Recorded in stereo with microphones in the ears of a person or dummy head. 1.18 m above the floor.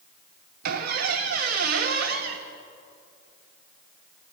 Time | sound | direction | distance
0.6 | a squeak | 55° right (ahead or behind) | 1.0 m